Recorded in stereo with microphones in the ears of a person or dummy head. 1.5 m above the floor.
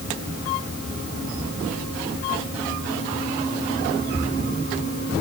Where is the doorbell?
No doorbell in this recording.